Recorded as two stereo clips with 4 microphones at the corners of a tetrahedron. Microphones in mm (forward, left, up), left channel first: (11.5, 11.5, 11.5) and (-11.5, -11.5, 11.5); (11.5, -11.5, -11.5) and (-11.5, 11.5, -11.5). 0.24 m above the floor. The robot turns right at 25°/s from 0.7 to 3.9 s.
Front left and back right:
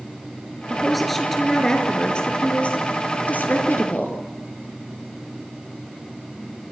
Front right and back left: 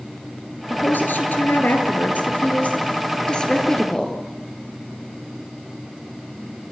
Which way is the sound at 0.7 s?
55° right.